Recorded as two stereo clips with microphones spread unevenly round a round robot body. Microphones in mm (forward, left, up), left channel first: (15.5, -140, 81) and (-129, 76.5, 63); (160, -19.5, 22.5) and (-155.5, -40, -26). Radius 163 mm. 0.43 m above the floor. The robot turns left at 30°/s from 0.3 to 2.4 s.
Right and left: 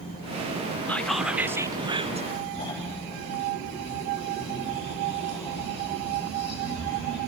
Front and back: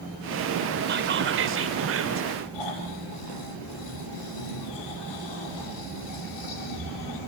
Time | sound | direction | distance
0.9 | whispering | 140° right | 1.6 m
2.5 | snoring | 20° left | 7.5 m